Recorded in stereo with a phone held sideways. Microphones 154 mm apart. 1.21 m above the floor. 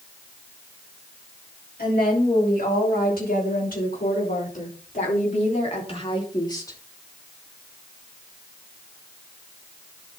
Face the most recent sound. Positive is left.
turn(degrees=20)  # may be behind; listen again after turning